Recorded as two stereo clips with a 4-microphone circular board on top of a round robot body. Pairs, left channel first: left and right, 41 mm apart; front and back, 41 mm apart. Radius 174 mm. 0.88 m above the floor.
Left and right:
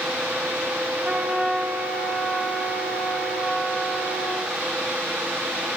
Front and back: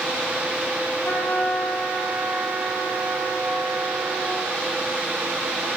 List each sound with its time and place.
1.0 s a trumpet: 25° right, 6.5 m